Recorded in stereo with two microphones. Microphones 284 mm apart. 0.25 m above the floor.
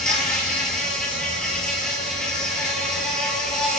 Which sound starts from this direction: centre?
An insect, at 0.0 s.